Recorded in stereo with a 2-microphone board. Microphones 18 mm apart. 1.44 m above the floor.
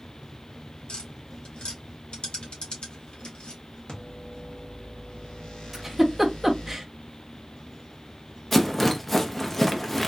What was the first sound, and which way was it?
Tapping, 80° left.